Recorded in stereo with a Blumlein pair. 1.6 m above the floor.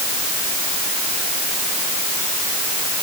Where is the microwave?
No microwave in this recording.